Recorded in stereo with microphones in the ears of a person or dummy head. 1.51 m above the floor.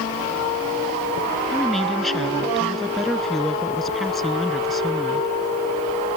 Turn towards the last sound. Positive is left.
turn(degrees=0)  # may be behind; listen again after turning